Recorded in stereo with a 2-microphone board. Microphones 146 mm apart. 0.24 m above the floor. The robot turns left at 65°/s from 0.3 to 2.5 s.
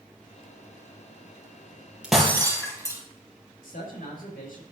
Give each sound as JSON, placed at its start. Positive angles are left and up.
{"t": 2.0, "sound": "breaking glass", "side_deg": -5, "distance_m": 3.0}
{"t": 3.6, "sound": "a man speaking", "side_deg": 75, "distance_m": 5.0}